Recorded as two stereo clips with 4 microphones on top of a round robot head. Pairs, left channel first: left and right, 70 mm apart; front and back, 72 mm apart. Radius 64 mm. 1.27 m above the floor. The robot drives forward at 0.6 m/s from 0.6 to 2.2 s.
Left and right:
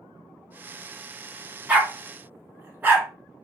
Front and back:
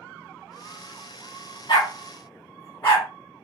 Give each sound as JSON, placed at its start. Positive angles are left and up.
{"t": 1.7, "sound": "a dog barking", "azimuth_deg": -25, "distance_m": 0.9}